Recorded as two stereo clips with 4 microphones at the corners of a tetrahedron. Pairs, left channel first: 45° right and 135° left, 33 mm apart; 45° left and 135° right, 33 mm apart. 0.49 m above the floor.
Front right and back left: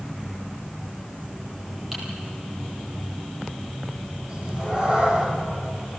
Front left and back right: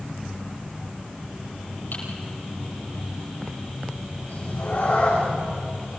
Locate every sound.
1.9 s typing on a keyboard: 55° left, 10 m
4.3 s a cat meowing: 75° left, 8 m